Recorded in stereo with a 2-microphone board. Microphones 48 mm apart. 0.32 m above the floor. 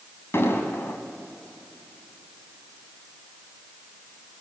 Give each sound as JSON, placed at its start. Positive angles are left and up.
{"t": 0.3, "sound": "an explosion", "side_deg": 60, "distance_m": 2.5}